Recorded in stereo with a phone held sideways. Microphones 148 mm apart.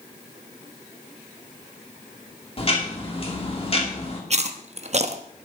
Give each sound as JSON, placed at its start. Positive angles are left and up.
{"t": 2.6, "sound": "ticking", "side_deg": 40, "distance_m": 2.5}
{"t": 4.3, "sound": "chewing", "side_deg": -50, "distance_m": 0.9}